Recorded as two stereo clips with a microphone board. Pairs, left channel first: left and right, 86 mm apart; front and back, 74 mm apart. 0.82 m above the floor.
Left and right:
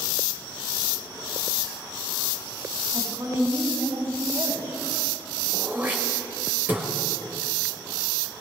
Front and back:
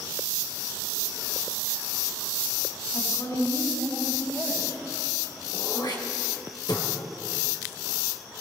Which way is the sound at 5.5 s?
20° right.